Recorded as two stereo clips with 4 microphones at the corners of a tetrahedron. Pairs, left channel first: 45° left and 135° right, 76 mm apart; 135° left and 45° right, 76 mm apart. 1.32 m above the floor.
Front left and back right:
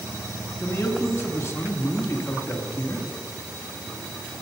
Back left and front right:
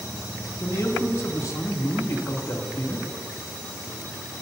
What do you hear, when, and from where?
0.6 s a man speaking: 95° left, 2.5 m